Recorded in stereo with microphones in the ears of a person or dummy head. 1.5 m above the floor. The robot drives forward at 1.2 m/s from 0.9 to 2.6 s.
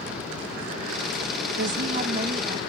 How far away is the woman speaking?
About 0.7 m.